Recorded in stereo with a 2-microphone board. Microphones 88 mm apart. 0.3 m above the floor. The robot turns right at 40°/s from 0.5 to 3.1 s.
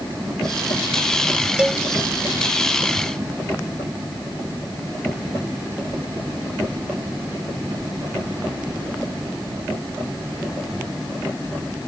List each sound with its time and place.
1.6 s a cowbell: 15° right (ahead or behind); by 1.8 s 5° right (ahead or behind)